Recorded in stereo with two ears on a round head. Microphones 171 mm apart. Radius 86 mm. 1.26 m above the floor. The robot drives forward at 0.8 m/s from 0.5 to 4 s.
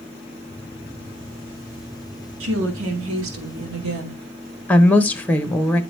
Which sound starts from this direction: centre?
A woman speaking, at 4.7 s.